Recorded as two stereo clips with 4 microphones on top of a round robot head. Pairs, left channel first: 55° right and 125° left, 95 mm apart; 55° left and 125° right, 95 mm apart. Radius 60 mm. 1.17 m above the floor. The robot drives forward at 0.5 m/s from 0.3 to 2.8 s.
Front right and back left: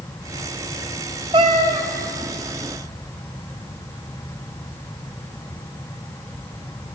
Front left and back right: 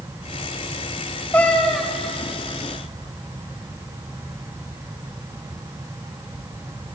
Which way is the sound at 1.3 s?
120° left.